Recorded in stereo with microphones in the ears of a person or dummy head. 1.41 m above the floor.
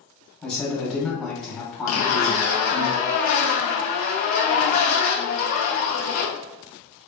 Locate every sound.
0.4 s a man speaking: centre (ahead or behind), 1.3 m
1.9 s a zipper: 40° left (ahead or behind), 0.6 m